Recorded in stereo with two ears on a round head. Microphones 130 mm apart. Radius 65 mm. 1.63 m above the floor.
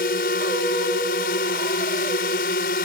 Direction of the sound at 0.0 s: 70° left (ahead or behind).